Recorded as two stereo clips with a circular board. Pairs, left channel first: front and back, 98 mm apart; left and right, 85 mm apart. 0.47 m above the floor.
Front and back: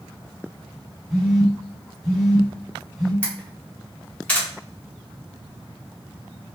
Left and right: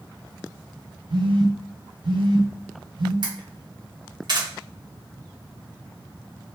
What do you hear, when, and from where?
1.1 s a phone buzzing: 95° right, 1.3 m
3.2 s a camera shutter: 75° right, 1.0 m